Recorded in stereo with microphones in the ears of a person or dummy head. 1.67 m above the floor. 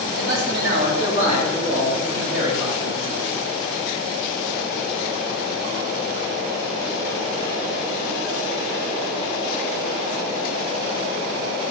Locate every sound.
0.1 s a man speaking: 75° right (ahead or behind), 2.0 m; by 3.2 s 30° right (ahead or behind), 4 m